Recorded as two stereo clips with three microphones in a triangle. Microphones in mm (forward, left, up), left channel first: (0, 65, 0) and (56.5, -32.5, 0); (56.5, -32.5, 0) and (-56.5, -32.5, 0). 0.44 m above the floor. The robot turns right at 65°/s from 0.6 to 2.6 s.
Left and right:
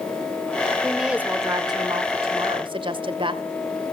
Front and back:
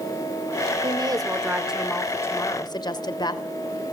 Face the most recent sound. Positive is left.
turn(degrees=-40)